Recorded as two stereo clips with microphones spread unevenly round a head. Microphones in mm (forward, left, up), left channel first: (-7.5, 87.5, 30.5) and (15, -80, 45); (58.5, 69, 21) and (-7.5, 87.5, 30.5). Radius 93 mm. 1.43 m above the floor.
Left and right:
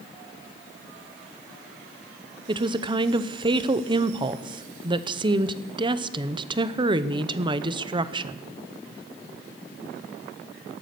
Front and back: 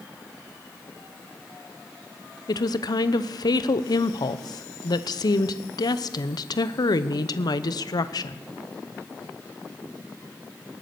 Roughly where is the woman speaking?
Ahead.